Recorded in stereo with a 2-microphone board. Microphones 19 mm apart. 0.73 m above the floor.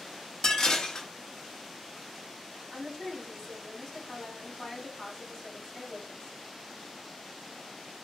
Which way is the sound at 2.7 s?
30° left (ahead or behind).